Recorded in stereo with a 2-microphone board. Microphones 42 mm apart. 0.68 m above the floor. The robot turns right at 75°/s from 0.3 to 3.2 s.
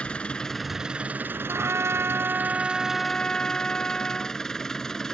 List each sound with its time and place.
0.0 s an engine running: 155° left; by 5.1 s 10° left
1.5 s a trumpet: 110° right; by 4.4 s 20° left